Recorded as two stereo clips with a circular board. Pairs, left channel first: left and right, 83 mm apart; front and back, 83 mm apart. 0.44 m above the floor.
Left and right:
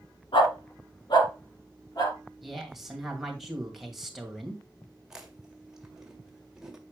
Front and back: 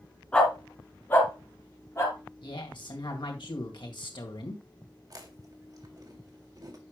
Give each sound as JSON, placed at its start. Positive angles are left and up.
{"t": 0.3, "sound": "a dog barking", "azimuth_deg": 75, "distance_m": 2.0}
{"t": 2.4, "sound": "a woman speaking", "azimuth_deg": -5, "distance_m": 2.0}
{"t": 5.1, "sound": "chewing", "azimuth_deg": -170, "distance_m": 1.7}